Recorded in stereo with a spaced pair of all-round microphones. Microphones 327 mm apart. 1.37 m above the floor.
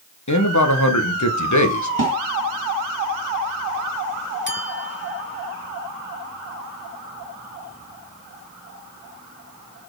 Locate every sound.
0.3 s a man speaking: 60° left (ahead or behind), 1.3 m
2.0 s a snare drum: 75° right (ahead or behind), 2.5 m
4.5 s a clink: 35° left (ahead or behind), 1.7 m